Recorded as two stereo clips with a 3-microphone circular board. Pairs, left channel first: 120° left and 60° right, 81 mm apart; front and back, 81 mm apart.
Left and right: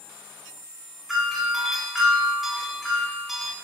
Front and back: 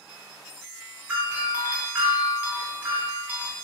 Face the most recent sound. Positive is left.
turn(degrees=-145)